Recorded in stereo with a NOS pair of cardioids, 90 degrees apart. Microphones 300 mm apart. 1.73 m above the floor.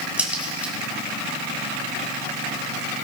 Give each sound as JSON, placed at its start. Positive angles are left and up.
{"t": 0.2, "sound": "a crack", "azimuth_deg": -5, "distance_m": 4.0}